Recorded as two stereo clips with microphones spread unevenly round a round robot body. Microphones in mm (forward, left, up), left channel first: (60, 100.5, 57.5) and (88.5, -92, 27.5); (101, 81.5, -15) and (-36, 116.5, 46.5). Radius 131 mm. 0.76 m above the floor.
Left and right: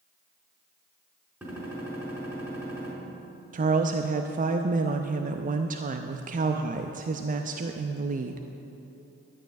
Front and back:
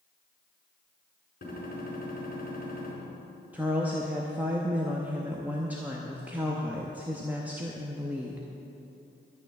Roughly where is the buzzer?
I don't hear a buzzer.